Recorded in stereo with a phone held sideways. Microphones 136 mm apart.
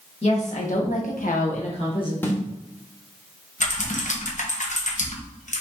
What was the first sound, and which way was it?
A woman speaking, 50° left (ahead or behind).